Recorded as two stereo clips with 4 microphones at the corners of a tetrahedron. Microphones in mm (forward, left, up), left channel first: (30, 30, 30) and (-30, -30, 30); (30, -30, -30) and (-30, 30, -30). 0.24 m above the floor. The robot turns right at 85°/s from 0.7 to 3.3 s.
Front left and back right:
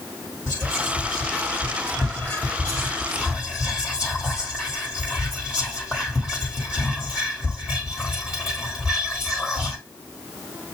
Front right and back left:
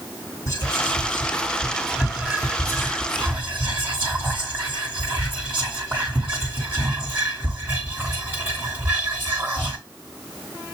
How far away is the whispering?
About 1.6 m.